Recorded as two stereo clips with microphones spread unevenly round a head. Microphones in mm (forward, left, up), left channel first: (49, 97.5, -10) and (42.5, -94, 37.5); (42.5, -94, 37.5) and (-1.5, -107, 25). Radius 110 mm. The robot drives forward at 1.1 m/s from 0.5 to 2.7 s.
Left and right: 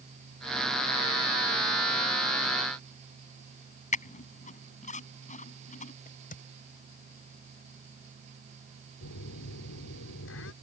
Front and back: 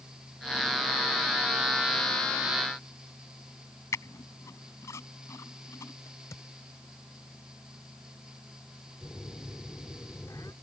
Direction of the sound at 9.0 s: 75° left.